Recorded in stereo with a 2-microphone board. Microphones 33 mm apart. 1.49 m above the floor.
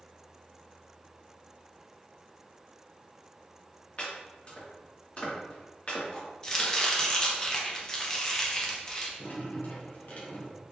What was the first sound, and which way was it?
Chopping, 35° left (ahead or behind).